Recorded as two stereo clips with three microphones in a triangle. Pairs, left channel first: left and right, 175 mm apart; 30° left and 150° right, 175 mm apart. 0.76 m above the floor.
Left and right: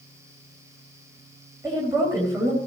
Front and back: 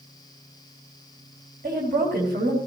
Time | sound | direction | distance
1.6 | a woman speaking | 165° right | 3.5 m